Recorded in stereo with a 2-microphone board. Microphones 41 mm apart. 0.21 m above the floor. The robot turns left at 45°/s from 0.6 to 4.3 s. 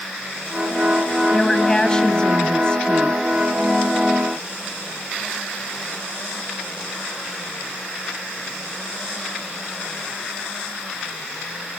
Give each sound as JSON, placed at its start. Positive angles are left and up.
{"t": 1.3, "sound": "a woman speaking", "side_deg": 10, "distance_m": 1.1}